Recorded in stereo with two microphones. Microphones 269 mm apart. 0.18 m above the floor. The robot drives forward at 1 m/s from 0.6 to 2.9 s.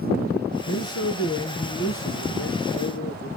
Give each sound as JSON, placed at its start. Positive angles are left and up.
{"t": 0.7, "sound": "a man speaking", "side_deg": 65, "distance_m": 2.0}